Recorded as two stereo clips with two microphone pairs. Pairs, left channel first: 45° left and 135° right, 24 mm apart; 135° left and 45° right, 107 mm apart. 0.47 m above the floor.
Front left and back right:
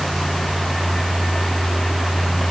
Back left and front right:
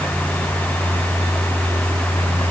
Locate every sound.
Only background noise.